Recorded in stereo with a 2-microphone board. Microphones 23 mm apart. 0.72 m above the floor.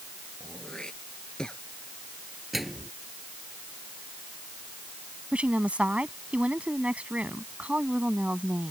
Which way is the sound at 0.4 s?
30° left (ahead or behind).